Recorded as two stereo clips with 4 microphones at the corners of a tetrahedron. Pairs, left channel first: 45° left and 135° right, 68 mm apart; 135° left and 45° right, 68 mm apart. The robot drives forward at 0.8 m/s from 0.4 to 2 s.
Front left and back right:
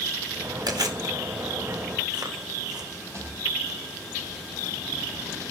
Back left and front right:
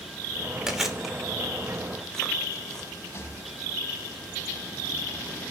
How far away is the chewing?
About 2 m.